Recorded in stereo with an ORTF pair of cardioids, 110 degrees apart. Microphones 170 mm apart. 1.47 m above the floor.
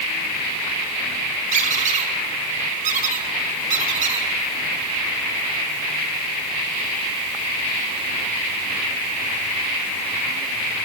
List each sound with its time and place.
1.5 s a squeak: 45° right, 1.8 m